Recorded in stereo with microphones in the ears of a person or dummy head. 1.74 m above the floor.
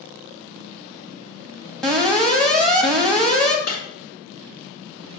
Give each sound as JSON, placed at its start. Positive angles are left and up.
{"t": 1.8, "sound": "an alarm", "side_deg": 0, "distance_m": 1.1}
{"t": 3.7, "sound": "breaking glass", "side_deg": 65, "distance_m": 3.5}